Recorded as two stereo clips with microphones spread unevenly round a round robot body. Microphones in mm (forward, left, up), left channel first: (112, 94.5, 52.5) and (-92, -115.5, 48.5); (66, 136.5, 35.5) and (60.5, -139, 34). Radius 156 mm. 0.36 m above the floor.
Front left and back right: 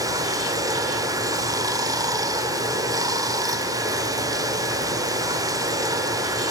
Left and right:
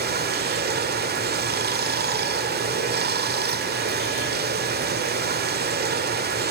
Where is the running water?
65° right, 1.3 m.